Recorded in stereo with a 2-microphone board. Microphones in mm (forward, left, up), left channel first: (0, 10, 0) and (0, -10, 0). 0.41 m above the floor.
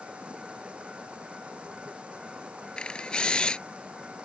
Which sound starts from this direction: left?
A camera shutter, at 2.8 s.